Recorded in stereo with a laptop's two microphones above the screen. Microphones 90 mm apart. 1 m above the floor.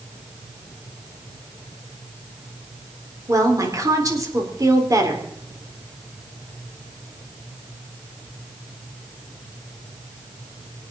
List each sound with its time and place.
3.3 s a woman speaking: 40° right (ahead or behind), 3.5 m